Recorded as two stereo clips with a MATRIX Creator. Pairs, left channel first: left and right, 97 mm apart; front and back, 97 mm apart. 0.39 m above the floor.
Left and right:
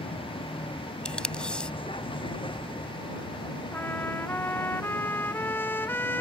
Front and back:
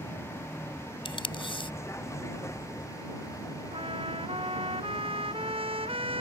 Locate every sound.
0.0 s a vehicle: 65° left; by 6.2 s 55° left
1.1 s tape being pulled: 10° left
3.7 s a trumpet: 160° left